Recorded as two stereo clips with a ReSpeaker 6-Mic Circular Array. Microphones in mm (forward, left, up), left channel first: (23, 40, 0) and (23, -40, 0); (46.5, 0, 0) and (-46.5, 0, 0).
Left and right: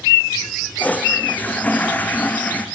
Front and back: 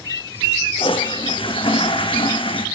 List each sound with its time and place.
0.8 s a toilet flushing: 20° left, 2.5 m